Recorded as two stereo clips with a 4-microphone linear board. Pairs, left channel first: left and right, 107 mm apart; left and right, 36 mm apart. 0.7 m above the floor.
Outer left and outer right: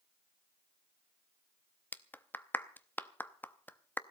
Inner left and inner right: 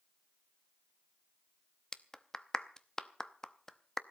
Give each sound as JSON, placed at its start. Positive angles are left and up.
{"t": 1.9, "sound": "a clap", "side_deg": 15, "distance_m": 0.7}